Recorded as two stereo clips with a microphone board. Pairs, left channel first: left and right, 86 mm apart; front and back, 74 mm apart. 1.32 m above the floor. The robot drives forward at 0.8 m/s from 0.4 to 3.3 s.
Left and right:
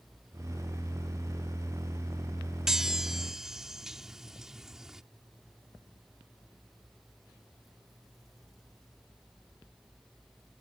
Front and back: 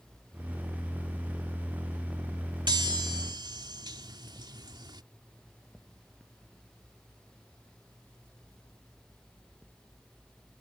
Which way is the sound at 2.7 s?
175° right.